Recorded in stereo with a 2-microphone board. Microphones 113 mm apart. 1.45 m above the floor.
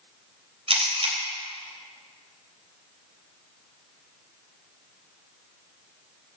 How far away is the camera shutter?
About 3 m.